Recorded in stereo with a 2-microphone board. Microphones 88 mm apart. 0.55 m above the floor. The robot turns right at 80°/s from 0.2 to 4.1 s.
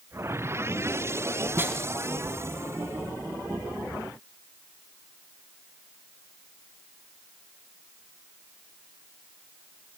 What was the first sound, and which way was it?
A snare drum, 30° right (ahead or behind).